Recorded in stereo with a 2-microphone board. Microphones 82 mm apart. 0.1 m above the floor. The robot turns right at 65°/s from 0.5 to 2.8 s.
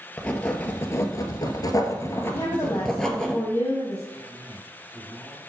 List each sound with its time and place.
0.2 s writing: 20° left, 1.6 m; by 3.3 s 170° left, 1.6 m
2.3 s a woman speaking: 55° left (ahead or behind), 3.5 m; by 4.0 s 30° left (ahead or behind), 3.5 m
4.1 s a man speaking: centre (ahead or behind), 4.5 m